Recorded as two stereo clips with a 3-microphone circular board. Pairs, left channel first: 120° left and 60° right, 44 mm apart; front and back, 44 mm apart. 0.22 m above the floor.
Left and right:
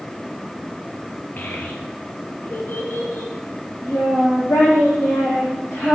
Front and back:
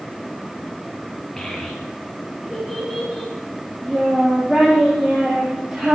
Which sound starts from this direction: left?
A child speaking, at 1.4 s.